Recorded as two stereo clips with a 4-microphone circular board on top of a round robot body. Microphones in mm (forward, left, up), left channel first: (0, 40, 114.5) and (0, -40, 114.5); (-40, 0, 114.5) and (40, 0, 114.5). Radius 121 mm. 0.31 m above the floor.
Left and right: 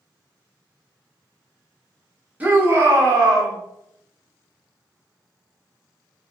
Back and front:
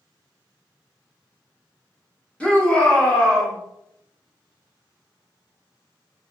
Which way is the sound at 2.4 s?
125° right.